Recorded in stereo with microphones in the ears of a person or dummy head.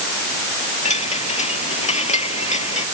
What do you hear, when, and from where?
0.8 s a chime: 40° left (ahead or behind)